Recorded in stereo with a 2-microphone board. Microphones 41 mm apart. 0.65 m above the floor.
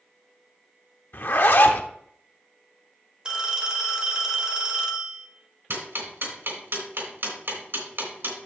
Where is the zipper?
60° left (ahead or behind), 1.0 m.